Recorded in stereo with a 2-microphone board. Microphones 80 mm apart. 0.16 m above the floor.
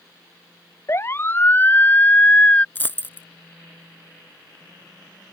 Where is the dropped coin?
25° left (ahead or behind).